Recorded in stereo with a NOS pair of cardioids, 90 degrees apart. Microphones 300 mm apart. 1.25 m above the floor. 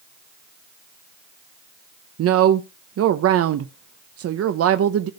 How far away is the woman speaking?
About 0.8 m.